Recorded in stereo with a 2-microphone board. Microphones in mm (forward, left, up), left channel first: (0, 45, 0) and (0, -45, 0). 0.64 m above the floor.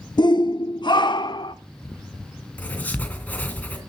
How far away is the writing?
About 3 m.